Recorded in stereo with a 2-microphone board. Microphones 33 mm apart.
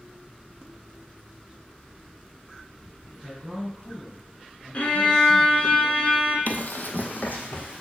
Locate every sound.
3.1 s a man speaking: 10° right (ahead or behind), 4 m
4.7 s a violin: 40° left (ahead or behind), 1.2 m
6.5 s running footsteps: 65° left (ahead or behind), 0.5 m; by 7.8 s 60° left (ahead or behind), 1.8 m